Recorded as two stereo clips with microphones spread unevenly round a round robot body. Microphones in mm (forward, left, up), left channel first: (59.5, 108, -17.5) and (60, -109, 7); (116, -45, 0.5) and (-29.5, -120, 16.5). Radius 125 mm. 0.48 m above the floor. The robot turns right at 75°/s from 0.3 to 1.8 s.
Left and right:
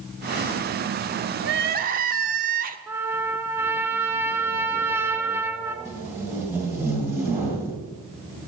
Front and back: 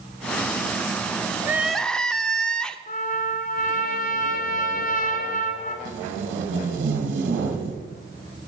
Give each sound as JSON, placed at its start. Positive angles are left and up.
{"t": 1.4, "sound": "crying", "azimuth_deg": -80, "distance_m": 0.7}
{"t": 2.9, "sound": "a trumpet", "azimuth_deg": -10, "distance_m": 1.1}
{"t": 5.8, "sound": "tape being pulled", "azimuth_deg": -175, "distance_m": 1.9}